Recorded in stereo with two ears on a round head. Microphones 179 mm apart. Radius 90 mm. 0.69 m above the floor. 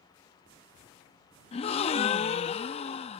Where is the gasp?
30° left (ahead or behind).